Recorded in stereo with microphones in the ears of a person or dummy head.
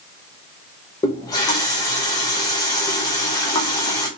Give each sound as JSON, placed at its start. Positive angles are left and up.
{"t": 1.0, "sound": "a running tap", "side_deg": 15, "distance_m": 0.5}